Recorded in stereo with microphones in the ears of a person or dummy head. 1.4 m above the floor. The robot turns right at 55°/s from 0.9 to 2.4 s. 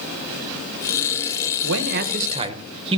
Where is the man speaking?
70° right, 1.0 m; by 3.0 s 30° right, 1.0 m.